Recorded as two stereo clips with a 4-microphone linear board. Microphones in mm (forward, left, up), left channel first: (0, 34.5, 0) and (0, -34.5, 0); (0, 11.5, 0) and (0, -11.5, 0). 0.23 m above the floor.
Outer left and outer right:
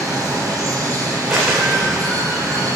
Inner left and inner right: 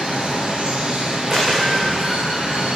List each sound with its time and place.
0.0 s running water: 50° right (ahead or behind), 6.5 m
1.3 s a dropped coin: 10° right (ahead or behind), 10 m